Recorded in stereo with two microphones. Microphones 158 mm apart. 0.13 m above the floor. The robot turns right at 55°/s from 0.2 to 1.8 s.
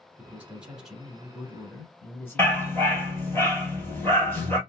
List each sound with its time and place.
0.2 s a man speaking: 15° right (ahead or behind), 1.1 m; by 3.4 s 15° left (ahead or behind), 1.1 m
2.4 s a dog barking: 15° left (ahead or behind), 1.5 m